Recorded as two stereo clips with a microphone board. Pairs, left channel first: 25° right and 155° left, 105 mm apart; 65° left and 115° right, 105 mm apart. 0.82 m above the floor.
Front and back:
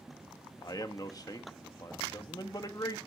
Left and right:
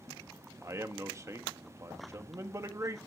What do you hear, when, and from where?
0.6 s a man speaking: 60° right, 1.4 m